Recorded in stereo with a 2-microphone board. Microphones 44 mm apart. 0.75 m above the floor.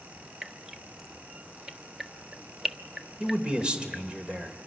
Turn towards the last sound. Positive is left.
turn(degrees=-25)  # may be behind; listen again after turning